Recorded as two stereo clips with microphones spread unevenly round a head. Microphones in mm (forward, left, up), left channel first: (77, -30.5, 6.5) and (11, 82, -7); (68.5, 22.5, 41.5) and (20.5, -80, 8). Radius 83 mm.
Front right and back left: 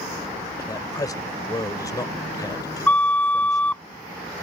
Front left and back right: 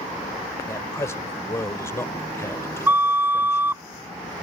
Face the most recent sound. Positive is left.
turn(degrees=-25)